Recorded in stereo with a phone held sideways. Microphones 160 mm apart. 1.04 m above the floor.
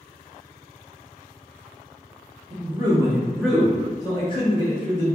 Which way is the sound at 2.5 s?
35° right (ahead or behind).